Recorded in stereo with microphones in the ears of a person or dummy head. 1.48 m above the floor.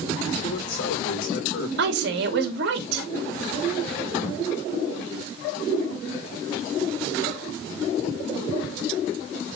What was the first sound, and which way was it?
A man speaking, 65° left (ahead or behind).